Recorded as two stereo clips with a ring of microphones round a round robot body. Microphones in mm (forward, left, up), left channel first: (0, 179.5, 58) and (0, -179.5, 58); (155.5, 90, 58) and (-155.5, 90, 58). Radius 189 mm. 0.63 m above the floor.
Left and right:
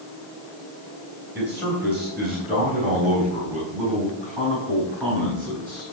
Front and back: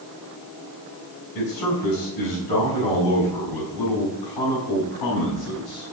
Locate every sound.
1.4 s a man speaking: 5° right, 3.5 m; by 5.9 s 5° left, 6 m